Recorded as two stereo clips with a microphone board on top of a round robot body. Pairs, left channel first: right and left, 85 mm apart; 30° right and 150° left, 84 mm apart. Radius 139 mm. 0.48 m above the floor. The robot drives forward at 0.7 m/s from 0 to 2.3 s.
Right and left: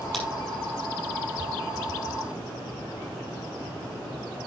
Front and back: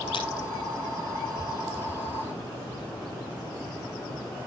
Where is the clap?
Straight ahead, 5.5 m.